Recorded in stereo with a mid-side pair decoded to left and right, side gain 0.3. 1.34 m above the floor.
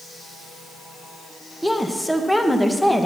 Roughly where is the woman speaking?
Ahead.